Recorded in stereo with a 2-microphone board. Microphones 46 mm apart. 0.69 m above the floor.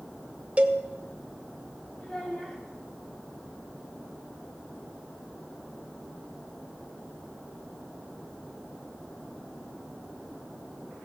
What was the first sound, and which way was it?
A cowbell, 30° right (ahead or behind).